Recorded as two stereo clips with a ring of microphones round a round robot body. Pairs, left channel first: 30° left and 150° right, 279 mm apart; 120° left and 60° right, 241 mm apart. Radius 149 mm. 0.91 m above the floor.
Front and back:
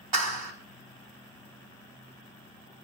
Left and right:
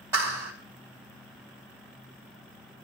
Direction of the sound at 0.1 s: 140° right.